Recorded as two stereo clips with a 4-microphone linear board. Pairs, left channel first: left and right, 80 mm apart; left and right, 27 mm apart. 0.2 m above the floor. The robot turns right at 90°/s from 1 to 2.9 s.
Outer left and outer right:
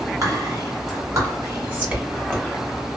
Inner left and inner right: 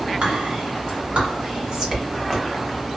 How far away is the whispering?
About 1.7 m.